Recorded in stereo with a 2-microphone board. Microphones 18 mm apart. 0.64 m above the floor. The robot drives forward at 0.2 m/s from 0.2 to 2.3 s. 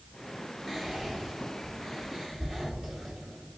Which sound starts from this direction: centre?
Whispering, at 0.7 s.